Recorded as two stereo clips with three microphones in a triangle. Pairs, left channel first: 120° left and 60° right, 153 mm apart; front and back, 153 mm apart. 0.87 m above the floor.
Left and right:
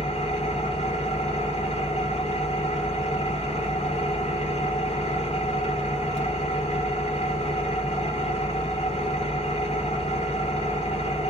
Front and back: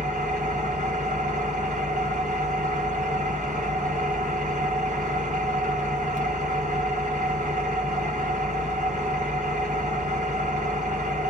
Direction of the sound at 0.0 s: 160° left.